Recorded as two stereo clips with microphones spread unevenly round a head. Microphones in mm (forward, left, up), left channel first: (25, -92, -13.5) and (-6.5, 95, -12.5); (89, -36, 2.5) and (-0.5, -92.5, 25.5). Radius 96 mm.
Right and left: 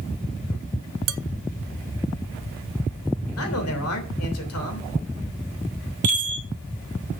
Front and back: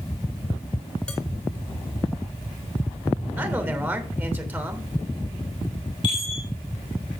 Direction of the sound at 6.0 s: 100° left.